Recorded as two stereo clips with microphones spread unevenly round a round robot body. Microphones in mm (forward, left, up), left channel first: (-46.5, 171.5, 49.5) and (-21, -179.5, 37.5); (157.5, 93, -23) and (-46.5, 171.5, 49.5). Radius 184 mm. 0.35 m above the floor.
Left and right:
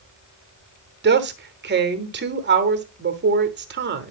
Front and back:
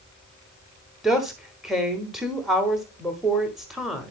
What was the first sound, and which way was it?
A woman speaking, 80° right.